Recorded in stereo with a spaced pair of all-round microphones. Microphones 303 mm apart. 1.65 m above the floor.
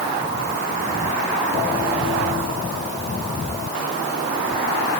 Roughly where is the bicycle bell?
I don't hear a bicycle bell.